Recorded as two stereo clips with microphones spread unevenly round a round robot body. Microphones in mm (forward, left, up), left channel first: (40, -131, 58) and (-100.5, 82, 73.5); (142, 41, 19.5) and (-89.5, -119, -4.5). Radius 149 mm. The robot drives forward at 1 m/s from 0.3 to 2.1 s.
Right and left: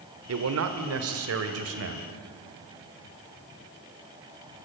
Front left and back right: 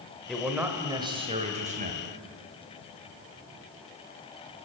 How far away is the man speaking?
About 1.9 m.